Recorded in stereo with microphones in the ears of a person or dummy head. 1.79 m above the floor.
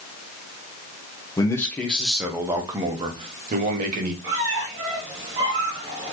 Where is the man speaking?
20° left (ahead or behind), 1.0 m; by 4.1 s 50° right (ahead or behind), 1.4 m.